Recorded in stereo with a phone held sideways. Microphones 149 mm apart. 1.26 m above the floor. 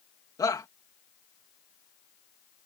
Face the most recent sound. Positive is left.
turn(degrees=25)  # may be behind; listen again after turning